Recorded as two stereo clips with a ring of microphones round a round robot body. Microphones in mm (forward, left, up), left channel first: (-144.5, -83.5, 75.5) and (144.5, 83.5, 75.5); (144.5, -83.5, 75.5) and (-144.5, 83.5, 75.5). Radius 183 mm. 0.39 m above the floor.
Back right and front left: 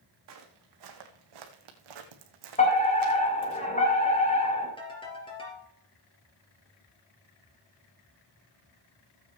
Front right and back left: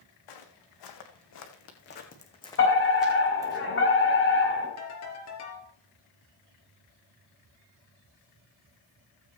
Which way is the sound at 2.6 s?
80° right.